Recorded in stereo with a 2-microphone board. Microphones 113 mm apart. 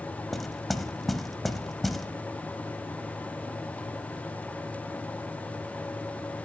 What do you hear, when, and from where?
0.3 s knocking: centre (ahead or behind), 0.8 m